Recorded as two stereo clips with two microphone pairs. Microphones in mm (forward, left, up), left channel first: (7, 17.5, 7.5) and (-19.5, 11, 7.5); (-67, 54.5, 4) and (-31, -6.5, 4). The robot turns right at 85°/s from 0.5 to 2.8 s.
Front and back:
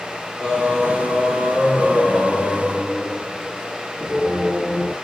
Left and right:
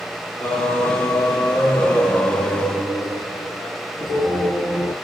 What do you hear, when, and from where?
0.4 s singing: 45° left, 2 m; by 4.9 s 120° right, 2 m